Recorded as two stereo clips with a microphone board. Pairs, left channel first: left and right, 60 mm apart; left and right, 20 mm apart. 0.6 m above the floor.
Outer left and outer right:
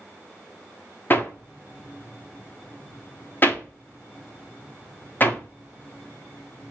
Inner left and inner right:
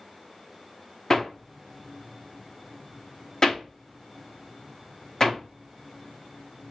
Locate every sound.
1.1 s hammering: 35° left (ahead or behind), 1.0 m